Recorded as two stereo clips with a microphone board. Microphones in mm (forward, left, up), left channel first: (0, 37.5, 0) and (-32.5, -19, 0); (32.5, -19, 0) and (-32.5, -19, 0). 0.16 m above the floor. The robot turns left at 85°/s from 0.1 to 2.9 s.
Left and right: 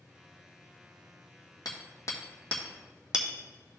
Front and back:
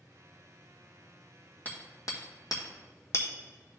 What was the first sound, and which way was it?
Hammering, 65° left.